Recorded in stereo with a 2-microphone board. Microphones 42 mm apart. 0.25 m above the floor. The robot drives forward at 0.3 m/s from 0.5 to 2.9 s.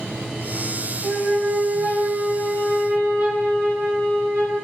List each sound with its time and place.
1.0 s a flute: 45° right (ahead or behind), 1.7 m; by 4.5 s 40° right (ahead or behind), 1.9 m